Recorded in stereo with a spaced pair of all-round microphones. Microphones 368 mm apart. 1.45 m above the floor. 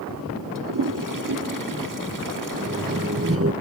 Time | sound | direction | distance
0.6 | a toilet flushing | 60° right (ahead or behind) | ?
2.5 | laughter | 35° right (ahead or behind) | ?